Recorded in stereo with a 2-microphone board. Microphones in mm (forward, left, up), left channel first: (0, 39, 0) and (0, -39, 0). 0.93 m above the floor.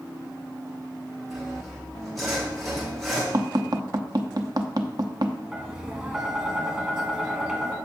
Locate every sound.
1.3 s sawing: centre (ahead or behind), 4 m
3.3 s tapping: 55° right (ahead or behind), 0.7 m
5.5 s tapping: 5° right (ahead or behind), 1.9 m